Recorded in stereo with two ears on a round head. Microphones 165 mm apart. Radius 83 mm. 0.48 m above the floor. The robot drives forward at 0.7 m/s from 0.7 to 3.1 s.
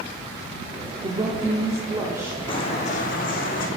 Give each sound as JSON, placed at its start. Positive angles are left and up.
{"t": 1.0, "sound": "a woman speaking", "side_deg": -25, "distance_m": 0.7}
{"t": 2.5, "sound": "footsteps", "side_deg": 30, "distance_m": 1.1}